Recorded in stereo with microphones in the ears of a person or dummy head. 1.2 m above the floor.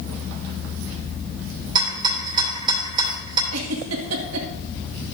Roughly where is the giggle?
Right.